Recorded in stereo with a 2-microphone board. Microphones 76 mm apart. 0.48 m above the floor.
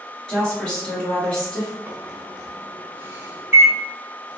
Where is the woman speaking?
10° left (ahead or behind), 1.8 m.